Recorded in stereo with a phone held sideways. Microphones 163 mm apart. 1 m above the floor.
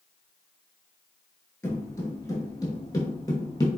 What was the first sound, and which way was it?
Footsteps, 15° left (ahead or behind).